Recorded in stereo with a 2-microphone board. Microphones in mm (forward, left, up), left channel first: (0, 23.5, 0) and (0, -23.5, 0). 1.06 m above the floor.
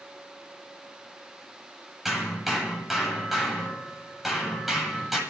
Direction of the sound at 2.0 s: 5° right (ahead or behind).